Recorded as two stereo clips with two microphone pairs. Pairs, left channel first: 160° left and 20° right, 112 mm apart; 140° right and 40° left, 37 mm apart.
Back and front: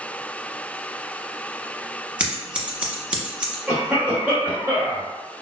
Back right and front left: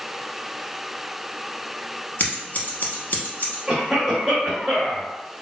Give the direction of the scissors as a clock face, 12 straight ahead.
3 o'clock.